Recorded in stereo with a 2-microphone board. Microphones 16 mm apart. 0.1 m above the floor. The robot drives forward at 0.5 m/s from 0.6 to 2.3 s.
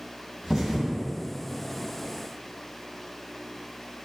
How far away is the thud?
About 1.3 m.